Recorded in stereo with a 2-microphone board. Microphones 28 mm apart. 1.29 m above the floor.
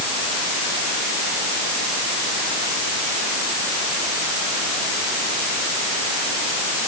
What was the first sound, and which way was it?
Only background noise.